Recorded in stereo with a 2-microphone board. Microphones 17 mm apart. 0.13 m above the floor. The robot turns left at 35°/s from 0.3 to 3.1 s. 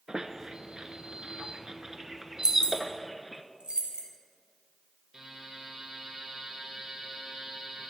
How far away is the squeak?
About 0.5 m.